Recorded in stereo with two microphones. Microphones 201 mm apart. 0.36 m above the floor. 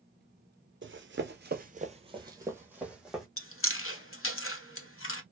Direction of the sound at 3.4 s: 75° left (ahead or behind).